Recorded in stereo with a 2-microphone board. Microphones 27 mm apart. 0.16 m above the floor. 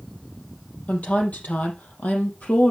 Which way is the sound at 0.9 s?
70° left (ahead or behind).